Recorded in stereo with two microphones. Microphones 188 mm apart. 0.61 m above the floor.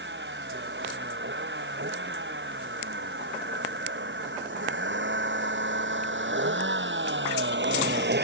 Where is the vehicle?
75° right (ahead or behind); by 8.2 s 65° right (ahead or behind).